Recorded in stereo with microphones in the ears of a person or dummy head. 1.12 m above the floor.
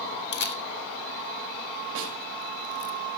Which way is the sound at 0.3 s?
60° left (ahead or behind).